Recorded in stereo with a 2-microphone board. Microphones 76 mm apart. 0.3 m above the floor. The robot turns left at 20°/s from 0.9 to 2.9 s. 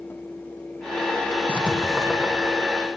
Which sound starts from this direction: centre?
Writing, at 1.5 s.